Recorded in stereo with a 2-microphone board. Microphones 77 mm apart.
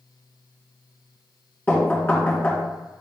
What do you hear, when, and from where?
1.7 s knocking: 25° left (ahead or behind), 2.5 m